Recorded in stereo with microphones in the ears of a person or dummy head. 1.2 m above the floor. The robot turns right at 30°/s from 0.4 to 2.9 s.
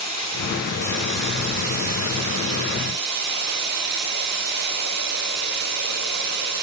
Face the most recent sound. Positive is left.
turn(degrees=-55)